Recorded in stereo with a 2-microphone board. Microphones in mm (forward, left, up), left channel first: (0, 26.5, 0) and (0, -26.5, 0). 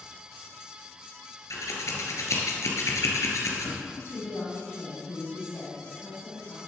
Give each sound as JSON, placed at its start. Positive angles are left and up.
{"t": 1.5, "sound": "scissors", "side_deg": 70, "distance_m": 2.5}
{"t": 3.9, "sound": "a woman speaking", "side_deg": 60, "distance_m": 3.5}